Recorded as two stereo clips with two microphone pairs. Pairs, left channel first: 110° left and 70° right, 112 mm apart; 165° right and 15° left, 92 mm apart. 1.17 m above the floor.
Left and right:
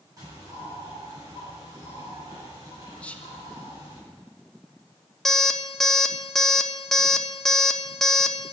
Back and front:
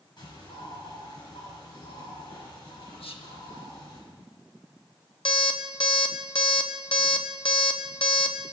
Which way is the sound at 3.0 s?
170° right.